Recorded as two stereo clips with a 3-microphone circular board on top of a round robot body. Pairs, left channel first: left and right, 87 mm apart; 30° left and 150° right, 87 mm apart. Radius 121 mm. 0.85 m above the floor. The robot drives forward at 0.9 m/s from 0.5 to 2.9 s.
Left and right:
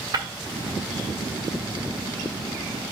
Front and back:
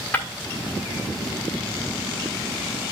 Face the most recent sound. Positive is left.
turn(degrees=-100)